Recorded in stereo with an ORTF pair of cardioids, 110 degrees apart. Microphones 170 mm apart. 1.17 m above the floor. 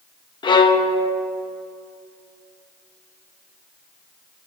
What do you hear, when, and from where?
0.4 s a violin: 25° left, 1.0 m